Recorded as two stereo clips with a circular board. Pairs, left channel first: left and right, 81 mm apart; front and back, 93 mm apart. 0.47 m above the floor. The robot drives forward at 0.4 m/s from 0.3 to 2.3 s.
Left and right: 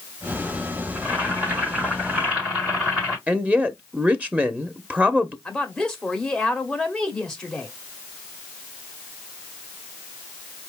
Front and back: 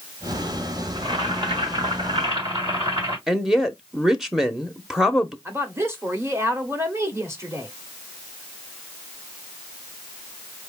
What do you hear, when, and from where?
0.9 s boiling: 160° right, 3.5 m; by 3.2 s 165° right, 4 m
3.3 s a woman speaking: 100° right, 0.7 m
5.5 s a woman speaking: 165° left, 1.3 m